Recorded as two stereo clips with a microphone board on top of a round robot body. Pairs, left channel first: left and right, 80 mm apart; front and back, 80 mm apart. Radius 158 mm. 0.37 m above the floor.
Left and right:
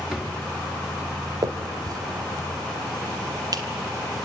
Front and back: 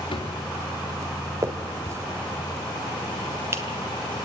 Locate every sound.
0.1 s a drawer: 10° right, 3.5 m
1.4 s a finger snap: 130° right, 1.7 m